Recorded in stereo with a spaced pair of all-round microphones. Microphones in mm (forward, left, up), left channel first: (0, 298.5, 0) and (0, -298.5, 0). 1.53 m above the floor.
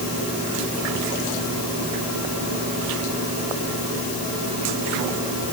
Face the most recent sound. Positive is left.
No sound to turn to.